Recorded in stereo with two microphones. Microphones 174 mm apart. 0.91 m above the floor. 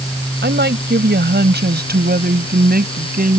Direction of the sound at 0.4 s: 80° right.